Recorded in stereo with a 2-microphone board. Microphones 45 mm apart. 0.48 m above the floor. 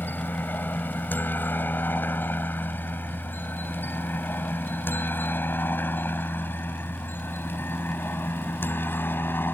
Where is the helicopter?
45° left (ahead or behind); by 9.6 s 50° left (ahead or behind).